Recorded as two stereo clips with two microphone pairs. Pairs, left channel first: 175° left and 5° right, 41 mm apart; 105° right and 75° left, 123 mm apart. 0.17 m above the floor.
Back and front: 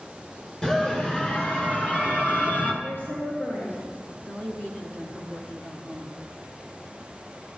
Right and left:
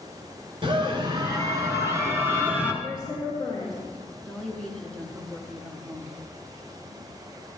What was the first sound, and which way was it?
A scream, 110° left.